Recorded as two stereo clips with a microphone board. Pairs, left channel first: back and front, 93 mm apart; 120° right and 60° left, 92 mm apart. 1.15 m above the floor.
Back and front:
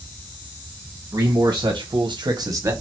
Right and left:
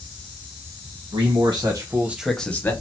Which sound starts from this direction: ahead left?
A man speaking, at 1.1 s.